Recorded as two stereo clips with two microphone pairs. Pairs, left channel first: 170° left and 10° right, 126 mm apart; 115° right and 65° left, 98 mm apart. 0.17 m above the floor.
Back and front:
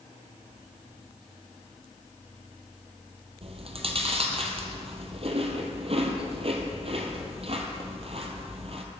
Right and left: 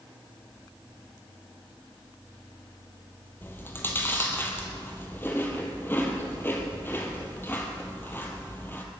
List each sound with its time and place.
3.4 s chewing: 45° right, 1.9 m